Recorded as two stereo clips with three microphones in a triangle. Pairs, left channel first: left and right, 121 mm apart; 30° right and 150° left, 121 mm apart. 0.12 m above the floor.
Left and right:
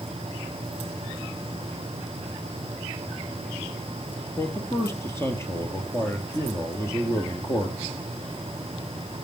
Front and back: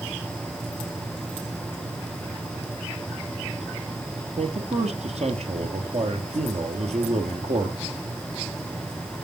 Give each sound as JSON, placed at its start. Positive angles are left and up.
{"t": 4.4, "sound": "a man speaking", "azimuth_deg": 155, "distance_m": 3.0}